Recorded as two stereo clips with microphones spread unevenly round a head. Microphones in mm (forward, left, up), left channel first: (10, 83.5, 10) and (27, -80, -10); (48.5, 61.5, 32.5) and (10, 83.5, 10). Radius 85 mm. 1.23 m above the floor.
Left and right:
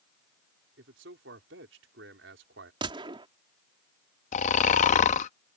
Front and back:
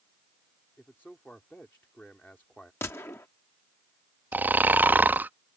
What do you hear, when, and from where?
0.8 s a man speaking: 105° right
2.8 s a gunshot: 20° right
4.3 s snoring: 85° left